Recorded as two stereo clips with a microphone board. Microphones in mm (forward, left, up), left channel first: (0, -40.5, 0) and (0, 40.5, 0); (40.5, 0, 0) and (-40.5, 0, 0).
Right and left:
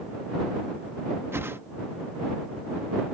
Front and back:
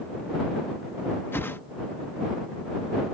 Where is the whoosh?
50° left.